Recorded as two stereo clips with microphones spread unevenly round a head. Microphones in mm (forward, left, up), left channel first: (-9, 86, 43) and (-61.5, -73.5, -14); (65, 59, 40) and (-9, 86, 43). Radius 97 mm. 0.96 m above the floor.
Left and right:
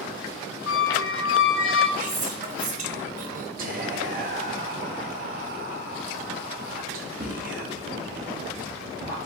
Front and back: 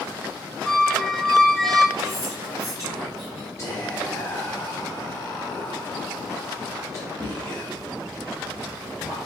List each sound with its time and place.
0.7 s a squeak: 65° left, 0.9 m
2.0 s whispering: 140° right, 0.7 m
3.6 s whispering: 80° right, 1.0 m